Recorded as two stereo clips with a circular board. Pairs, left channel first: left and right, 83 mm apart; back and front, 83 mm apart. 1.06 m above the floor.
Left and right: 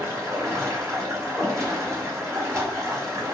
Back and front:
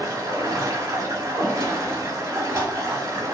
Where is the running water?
40° right, 0.8 m.